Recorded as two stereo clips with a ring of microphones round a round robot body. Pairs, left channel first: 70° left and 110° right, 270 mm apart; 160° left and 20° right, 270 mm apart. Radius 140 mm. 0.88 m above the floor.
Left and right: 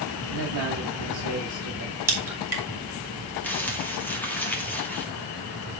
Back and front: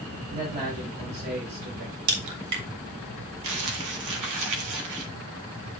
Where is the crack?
30° right, 3 m.